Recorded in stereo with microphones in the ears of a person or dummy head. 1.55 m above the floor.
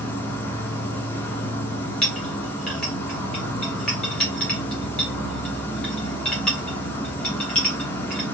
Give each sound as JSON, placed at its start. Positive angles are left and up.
{"t": 0.0, "sound": "an insect", "side_deg": 10, "distance_m": 0.8}
{"t": 2.0, "sound": "a clink", "side_deg": 5, "distance_m": 1.5}